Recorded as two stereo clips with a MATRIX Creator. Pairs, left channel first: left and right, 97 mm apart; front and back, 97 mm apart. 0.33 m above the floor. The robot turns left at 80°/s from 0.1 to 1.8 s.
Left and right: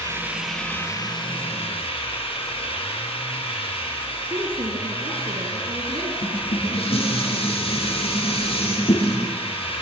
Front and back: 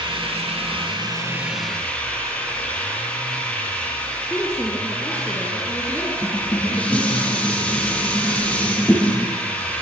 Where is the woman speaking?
85° right, 4 m.